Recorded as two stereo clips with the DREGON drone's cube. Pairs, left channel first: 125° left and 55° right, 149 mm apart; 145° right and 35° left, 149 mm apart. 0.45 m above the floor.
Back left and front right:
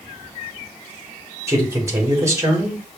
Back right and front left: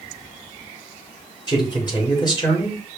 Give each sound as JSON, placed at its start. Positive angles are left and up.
{"t": 1.5, "sound": "a man speaking", "azimuth_deg": -115, "distance_m": 1.4}